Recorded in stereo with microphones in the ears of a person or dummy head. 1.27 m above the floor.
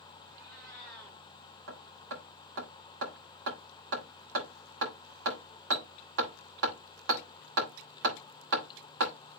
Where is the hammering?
65° right (ahead or behind), 3 m.